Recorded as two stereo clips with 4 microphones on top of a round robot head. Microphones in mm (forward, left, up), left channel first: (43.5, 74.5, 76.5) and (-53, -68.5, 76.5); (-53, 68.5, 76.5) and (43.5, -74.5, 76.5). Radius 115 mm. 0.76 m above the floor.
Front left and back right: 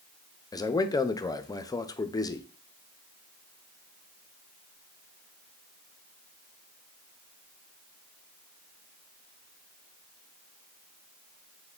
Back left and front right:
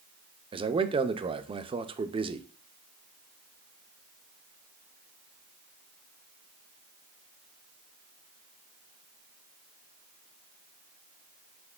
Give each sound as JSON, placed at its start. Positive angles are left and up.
{"t": 0.5, "sound": "a man speaking", "azimuth_deg": -5, "distance_m": 0.5}